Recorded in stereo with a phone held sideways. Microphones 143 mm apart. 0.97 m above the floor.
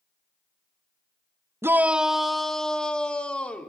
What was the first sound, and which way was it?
A shout, 20° right (ahead or behind).